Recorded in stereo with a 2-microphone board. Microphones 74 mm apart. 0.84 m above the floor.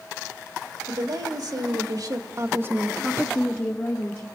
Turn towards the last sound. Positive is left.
turn(degrees=45)  # may be behind; listen again after turning